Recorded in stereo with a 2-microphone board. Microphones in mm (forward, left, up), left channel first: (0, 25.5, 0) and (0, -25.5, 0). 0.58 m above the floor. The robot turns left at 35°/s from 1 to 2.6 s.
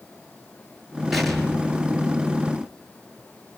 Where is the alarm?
No alarm in this recording.